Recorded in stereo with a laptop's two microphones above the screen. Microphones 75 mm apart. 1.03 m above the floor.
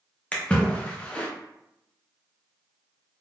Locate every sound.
0.3 s a splash: 15° left (ahead or behind), 0.6 m